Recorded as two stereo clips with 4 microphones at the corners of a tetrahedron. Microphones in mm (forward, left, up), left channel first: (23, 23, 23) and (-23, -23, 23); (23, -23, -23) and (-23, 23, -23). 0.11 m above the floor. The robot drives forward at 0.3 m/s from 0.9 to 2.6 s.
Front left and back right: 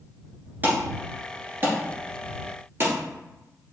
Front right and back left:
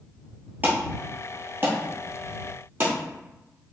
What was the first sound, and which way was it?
An alarm, straight behind.